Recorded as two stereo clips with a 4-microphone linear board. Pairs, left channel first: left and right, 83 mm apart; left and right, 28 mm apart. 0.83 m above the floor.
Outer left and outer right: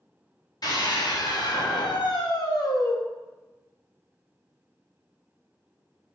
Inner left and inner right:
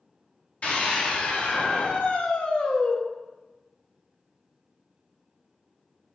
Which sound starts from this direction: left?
A scream, at 0.6 s.